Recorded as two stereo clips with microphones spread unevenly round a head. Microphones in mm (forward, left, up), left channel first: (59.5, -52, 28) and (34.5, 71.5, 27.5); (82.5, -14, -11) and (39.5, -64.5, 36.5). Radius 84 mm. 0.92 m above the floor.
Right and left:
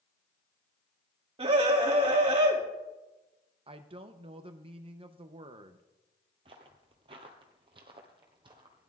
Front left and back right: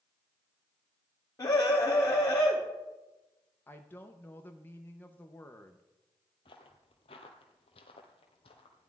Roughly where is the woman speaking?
Ahead left.